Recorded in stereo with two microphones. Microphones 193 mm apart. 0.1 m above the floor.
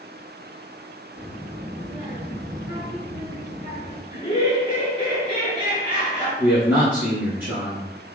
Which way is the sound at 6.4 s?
10° right (ahead or behind).